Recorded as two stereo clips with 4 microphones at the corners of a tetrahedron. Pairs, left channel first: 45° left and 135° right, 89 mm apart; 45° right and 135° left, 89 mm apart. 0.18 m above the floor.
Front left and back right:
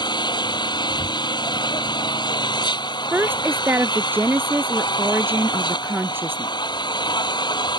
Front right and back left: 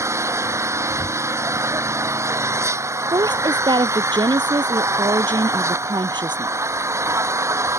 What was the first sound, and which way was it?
An engine running, 80° left.